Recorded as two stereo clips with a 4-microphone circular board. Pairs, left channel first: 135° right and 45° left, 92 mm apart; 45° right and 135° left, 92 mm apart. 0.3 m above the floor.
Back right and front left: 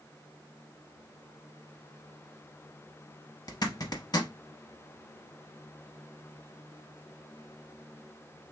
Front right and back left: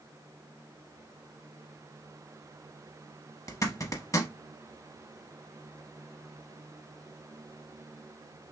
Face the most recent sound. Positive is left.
turn(degrees=-95)